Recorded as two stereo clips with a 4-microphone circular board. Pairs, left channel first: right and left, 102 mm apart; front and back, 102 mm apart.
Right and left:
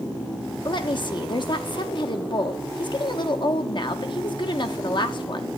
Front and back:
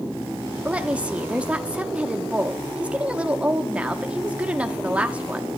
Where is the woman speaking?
105° right, 0.8 m.